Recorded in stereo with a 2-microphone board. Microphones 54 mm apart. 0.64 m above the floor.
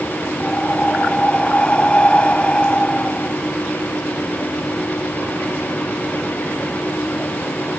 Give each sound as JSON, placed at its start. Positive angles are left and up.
{"t": 0.4, "sound": "breathing", "side_deg": 20}